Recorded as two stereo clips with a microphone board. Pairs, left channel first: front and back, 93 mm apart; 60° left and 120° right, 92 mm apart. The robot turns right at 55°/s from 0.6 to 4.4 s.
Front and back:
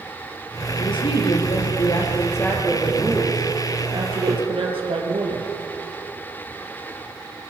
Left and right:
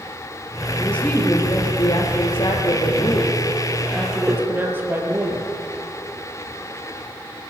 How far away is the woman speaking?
About 5 m.